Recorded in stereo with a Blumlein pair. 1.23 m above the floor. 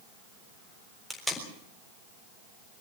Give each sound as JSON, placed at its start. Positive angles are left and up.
{"t": 1.1, "sound": "tape being pulled", "azimuth_deg": 0, "distance_m": 4.0}